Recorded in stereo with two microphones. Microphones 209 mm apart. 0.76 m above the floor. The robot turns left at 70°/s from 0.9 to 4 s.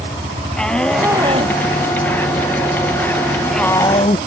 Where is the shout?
5° left (ahead or behind); by 4.2 s 35° left (ahead or behind).